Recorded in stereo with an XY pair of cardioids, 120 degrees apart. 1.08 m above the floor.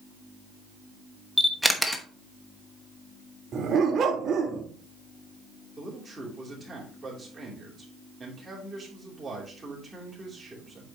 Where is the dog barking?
50° right, 1.4 m.